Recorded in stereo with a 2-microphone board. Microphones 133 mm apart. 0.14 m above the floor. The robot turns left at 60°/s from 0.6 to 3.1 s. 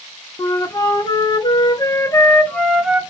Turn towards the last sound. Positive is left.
turn(degrees=-20)